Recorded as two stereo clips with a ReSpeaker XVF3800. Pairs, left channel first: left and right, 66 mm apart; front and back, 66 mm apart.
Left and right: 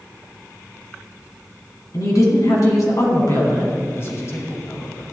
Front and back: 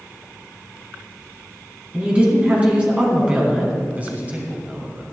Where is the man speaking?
125° left, 1.7 m.